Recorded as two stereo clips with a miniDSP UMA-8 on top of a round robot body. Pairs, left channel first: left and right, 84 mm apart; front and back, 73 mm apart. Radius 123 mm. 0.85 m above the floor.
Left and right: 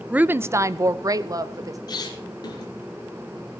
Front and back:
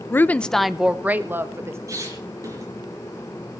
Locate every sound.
0.1 s a woman speaking: 25° right, 1.0 m; by 1.8 s 130° right, 1.8 m
1.9 s a squeak: 130° left, 4 m